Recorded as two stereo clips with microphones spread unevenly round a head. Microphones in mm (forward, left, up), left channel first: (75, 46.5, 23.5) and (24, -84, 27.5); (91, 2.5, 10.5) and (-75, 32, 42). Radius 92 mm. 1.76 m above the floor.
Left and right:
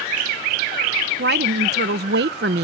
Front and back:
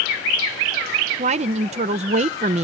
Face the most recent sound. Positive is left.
turn(degrees=-140)